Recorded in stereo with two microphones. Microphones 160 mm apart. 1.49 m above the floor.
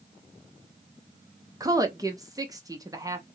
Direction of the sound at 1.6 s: 20° right (ahead or behind).